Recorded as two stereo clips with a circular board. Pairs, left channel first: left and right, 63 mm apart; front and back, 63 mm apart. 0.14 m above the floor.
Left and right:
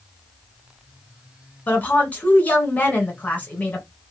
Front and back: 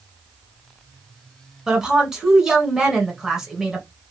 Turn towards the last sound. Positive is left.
turn(degrees=110)